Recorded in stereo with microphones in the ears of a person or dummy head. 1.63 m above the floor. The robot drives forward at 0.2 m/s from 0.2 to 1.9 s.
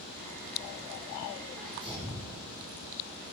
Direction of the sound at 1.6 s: 5° left (ahead or behind).